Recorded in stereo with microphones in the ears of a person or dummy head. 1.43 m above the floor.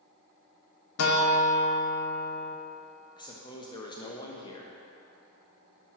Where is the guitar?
85° left, 0.9 m.